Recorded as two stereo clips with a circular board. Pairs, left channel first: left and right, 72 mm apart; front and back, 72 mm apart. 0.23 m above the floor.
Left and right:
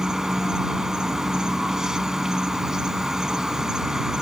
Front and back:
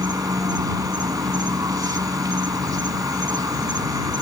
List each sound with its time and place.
0.0 s an insect: 170° right